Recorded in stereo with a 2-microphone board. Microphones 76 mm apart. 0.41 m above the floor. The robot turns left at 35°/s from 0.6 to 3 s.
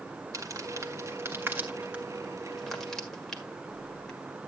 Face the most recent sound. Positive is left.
turn(degrees=5)  # may be behind; listen again after turning